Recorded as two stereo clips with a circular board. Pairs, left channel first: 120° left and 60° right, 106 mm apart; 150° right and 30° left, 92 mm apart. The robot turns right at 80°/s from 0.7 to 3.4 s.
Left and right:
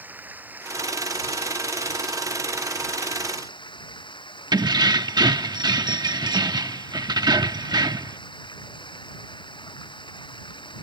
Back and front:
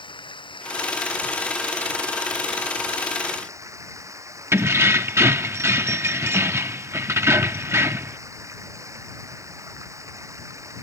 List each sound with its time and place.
0.0 s running water: 130° right; by 10.8 s 85° left
4.5 s keys jangling: 25° right